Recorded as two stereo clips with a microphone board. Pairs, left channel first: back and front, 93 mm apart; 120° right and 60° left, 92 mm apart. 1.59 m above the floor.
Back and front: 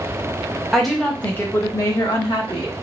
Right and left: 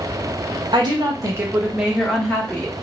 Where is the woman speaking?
85° left, 0.9 m; by 2.7 s 170° left, 1.0 m.